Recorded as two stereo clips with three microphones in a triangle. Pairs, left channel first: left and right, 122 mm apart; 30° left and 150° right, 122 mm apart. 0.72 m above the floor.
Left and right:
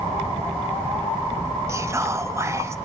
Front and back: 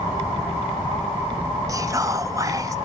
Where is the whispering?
130° right, 0.5 m.